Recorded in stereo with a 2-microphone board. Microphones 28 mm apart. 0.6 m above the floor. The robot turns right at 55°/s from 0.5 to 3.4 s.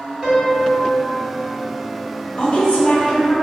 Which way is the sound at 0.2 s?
10° right.